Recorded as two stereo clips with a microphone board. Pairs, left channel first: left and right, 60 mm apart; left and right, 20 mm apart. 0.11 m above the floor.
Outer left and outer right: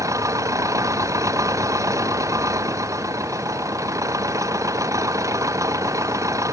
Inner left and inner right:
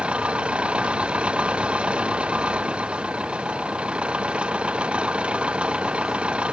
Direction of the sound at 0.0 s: 60° right (ahead or behind).